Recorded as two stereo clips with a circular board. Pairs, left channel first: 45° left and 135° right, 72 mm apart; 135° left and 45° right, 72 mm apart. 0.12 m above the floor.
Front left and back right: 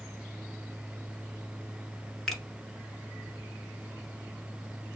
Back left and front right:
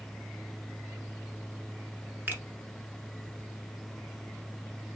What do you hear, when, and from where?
2.3 s a finger snap: 35° right, 1.2 m